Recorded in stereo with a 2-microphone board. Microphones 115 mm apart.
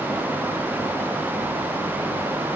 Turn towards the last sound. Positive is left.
No sound to turn to.